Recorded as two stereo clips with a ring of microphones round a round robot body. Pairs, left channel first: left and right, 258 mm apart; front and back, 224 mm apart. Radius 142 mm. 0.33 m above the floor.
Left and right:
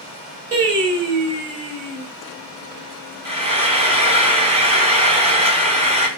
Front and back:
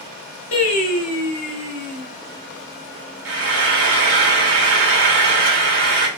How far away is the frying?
About 2.5 m.